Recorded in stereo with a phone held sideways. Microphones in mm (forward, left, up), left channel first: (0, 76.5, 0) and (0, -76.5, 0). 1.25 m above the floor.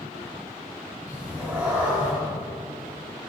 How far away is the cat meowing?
About 4.5 m.